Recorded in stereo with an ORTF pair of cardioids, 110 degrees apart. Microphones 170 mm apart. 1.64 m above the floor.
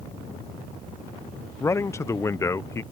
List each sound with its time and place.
1.6 s a man speaking: 15° left